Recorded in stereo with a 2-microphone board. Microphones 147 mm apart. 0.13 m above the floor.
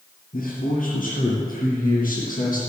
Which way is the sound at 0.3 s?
65° left (ahead or behind).